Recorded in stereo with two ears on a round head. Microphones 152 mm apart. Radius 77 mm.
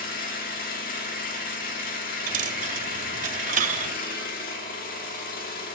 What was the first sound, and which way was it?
An engine running, 55° left (ahead or behind).